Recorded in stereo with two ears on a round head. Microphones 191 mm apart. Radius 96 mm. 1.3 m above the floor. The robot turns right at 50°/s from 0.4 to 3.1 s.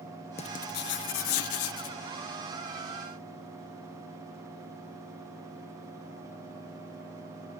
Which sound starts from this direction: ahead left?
Writing, at 0.4 s.